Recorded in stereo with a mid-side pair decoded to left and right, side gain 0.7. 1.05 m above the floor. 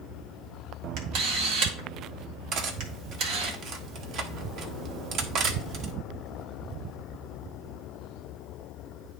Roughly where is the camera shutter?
Ahead right.